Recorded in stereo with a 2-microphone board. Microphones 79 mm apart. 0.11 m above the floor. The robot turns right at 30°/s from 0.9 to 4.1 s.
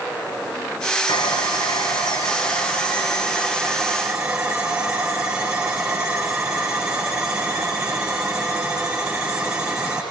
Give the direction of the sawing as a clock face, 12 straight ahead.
9 o'clock.